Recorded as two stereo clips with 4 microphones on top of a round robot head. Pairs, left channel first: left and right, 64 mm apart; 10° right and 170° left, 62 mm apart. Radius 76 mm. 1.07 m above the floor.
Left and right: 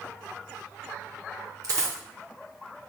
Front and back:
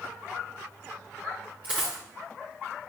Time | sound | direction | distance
1.6 | a dropped coin | 115° right | 0.9 m